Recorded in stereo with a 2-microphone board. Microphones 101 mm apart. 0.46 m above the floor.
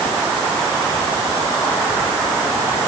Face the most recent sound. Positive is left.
No sound to turn to.